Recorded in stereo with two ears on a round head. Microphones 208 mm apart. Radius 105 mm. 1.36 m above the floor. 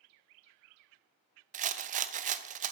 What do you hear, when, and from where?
1.5 s a rattle: 35° right (ahead or behind), 0.5 m